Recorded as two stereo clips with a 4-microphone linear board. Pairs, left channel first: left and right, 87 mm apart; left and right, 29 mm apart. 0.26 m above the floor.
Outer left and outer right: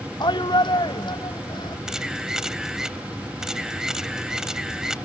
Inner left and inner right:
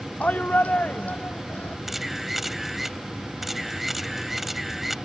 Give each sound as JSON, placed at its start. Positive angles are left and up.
{"t": 0.2, "sound": "a shout", "side_deg": 60}
{"t": 1.9, "sound": "a camera shutter", "side_deg": -5}